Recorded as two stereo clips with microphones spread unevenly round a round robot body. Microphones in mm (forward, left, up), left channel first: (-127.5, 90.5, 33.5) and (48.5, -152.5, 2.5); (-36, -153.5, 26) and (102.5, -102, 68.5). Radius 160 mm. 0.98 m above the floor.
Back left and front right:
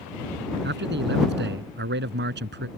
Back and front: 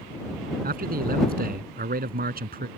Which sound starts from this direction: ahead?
A man speaking, at 0.6 s.